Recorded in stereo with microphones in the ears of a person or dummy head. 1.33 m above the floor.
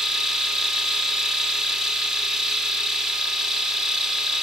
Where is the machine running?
5° right (ahead or behind), 0.7 m.